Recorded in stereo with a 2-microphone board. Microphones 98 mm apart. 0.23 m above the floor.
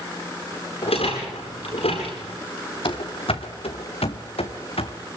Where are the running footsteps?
65° left (ahead or behind), 2.5 m; by 5.0 s 75° left (ahead or behind), 3 m.